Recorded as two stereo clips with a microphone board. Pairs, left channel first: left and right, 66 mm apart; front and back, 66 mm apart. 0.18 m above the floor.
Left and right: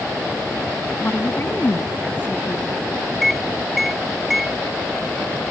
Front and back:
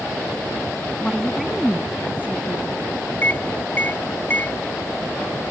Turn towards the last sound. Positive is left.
turn(degrees=-5)